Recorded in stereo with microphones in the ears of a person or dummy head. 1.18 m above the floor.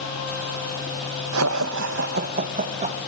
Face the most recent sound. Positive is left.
turn(degrees=-30)  # may be behind; listen again after turning